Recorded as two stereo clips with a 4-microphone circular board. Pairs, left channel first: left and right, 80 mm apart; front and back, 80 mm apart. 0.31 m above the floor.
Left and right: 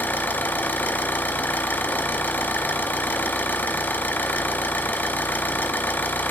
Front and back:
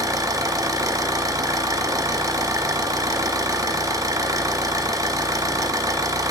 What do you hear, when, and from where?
0.0 s an engine running: 155° left, 1.0 m